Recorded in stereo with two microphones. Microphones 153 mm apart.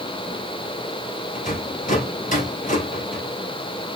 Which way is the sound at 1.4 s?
60° left (ahead or behind).